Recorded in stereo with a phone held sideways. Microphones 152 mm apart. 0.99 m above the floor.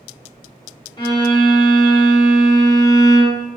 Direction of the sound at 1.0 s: 25° left (ahead or behind).